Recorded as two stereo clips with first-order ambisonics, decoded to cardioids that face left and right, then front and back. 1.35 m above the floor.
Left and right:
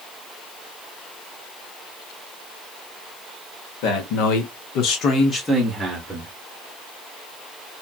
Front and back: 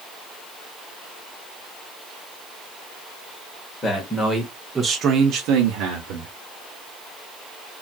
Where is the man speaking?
75° left, 1.3 m; by 6.3 s 160° right, 1.1 m.